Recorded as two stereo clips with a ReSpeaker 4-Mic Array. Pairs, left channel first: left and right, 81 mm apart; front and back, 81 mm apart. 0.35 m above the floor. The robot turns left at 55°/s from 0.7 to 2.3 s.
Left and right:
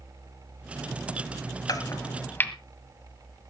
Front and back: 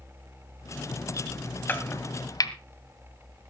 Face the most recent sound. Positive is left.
turn(degrees=30)